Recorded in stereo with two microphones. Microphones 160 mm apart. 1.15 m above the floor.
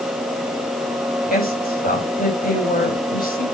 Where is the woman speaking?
65° left (ahead or behind), 6.5 m.